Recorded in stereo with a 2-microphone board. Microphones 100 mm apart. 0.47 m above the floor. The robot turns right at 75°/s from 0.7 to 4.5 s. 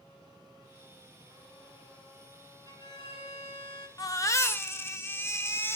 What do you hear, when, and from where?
2.7 s a violin: 35° left, 0.9 m; by 3.9 s 125° left, 0.9 m
4.0 s a baby crying: 95° left, 0.5 m; by 5.8 s 135° left, 0.5 m